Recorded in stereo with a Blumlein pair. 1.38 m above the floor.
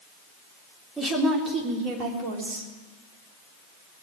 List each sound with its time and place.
1.0 s a woman speaking: 10° right, 3.5 m; by 2.7 s 50° right, 3.5 m